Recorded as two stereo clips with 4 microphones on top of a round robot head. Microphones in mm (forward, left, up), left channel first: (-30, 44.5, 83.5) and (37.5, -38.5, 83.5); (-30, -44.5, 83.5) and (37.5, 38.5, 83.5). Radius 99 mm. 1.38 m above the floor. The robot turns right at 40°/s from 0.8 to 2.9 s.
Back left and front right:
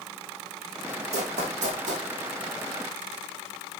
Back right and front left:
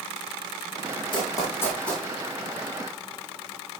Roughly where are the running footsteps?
Right.